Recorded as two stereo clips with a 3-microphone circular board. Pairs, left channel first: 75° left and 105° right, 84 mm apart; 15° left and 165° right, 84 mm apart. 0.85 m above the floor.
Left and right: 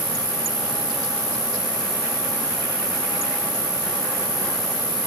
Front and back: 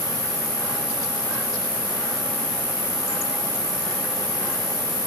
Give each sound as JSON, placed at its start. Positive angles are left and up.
{"t": 0.0, "sound": "an insect", "azimuth_deg": -120, "distance_m": 5.0}